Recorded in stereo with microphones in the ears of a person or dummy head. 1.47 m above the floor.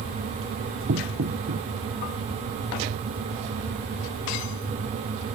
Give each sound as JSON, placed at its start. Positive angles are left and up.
{"t": 0.9, "sound": "knocking", "side_deg": -60}